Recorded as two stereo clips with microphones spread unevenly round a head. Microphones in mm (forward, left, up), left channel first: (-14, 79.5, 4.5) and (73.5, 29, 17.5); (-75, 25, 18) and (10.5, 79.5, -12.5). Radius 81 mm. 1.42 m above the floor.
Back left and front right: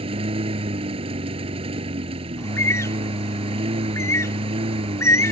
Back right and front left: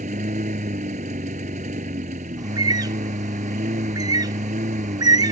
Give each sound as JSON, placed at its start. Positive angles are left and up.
{"t": 0.0, "sound": "a lawn mower", "azimuth_deg": -10}
{"t": 2.4, "sound": "a bird", "azimuth_deg": 85}